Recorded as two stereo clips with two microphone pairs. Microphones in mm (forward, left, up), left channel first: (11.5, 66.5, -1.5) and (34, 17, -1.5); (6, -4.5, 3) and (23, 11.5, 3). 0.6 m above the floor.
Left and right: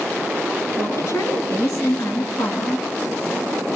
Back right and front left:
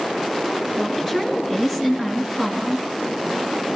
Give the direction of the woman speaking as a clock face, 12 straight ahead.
8 o'clock.